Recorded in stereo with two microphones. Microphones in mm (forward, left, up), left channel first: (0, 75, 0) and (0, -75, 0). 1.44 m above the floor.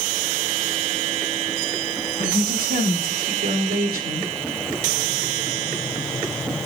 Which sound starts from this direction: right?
A woman speaking, at 2.2 s.